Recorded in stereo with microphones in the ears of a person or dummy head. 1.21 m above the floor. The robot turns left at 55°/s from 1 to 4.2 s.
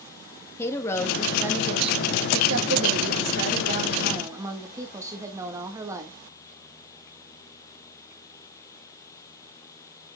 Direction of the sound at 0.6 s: 15° left.